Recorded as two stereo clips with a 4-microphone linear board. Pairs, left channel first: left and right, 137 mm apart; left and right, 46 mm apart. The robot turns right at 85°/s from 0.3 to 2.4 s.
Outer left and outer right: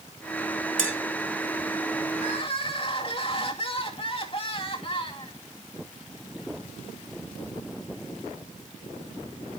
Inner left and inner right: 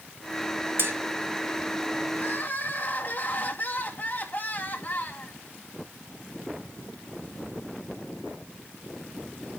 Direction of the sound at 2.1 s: 65° left (ahead or behind).